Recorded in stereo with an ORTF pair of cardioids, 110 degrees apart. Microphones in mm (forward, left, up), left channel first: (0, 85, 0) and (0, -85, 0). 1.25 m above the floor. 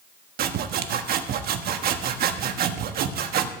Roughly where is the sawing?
Ahead right.